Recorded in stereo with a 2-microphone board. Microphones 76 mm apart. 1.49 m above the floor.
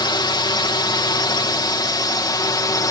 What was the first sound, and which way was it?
A drone, 65° left (ahead or behind).